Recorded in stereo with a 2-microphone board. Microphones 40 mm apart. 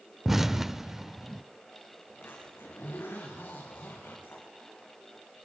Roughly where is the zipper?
Left.